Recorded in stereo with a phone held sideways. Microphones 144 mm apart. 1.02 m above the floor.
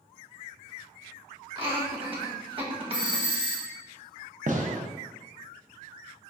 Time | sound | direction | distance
1.6 | laughter | 35° right (ahead or behind) | 1.3 m
2.9 | a doorbell | 5° right (ahead or behind) | 1.0 m
4.5 | a gunshot | 55° right (ahead or behind) | 0.6 m